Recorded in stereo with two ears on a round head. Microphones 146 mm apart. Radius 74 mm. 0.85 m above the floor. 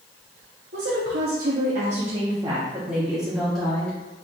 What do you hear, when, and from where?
0.7 s a woman speaking: 70° right (ahead or behind), 1.3 m; by 4.0 s 5° left (ahead or behind), 1.9 m